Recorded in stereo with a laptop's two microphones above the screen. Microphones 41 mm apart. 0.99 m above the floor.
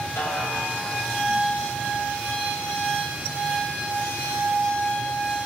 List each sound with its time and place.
0.2 s a snare drum: 85° left, 3 m